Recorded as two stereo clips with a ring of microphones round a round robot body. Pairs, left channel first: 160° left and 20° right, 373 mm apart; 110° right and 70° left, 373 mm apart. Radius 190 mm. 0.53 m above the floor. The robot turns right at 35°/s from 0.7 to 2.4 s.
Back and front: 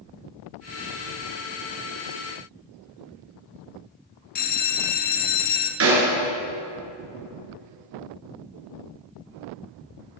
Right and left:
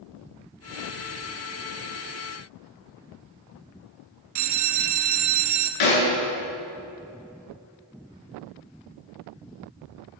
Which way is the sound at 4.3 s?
100° left.